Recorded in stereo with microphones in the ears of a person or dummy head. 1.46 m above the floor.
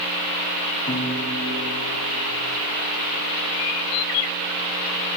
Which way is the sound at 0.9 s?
30° left (ahead or behind).